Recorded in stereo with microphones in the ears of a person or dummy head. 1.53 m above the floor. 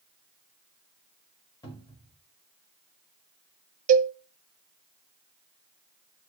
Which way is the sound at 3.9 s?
45° right (ahead or behind).